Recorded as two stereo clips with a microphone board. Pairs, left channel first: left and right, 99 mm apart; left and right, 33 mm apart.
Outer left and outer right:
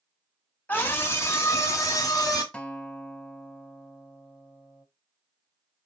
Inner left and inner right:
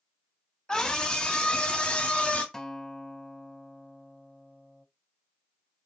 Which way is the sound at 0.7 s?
20° left (ahead or behind).